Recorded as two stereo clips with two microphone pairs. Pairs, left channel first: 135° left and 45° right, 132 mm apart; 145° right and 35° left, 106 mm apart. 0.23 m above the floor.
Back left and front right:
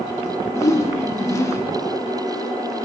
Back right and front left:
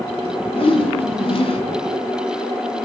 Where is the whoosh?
160° right, 0.8 m.